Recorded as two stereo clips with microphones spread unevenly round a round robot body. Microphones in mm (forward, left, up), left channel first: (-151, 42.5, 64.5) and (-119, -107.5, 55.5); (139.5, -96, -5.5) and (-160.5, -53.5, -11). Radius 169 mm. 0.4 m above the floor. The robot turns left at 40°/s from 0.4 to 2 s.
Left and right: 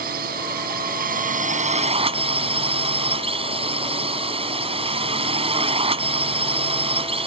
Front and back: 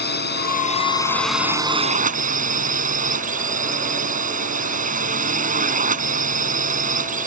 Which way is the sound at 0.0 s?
60° right.